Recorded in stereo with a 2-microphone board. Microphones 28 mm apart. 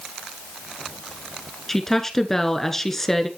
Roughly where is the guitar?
I don't hear a guitar.